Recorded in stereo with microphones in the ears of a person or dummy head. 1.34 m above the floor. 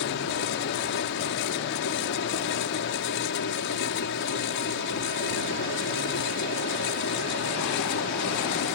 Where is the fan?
65° left (ahead or behind).